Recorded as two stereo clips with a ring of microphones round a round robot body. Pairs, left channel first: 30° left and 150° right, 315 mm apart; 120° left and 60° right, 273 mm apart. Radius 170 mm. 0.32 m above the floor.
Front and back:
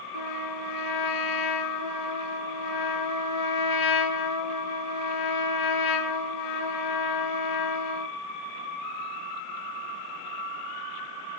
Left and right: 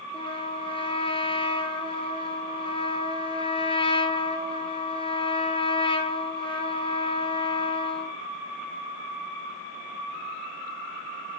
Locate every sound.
0.1 s a trumpet: 50° left, 5.5 m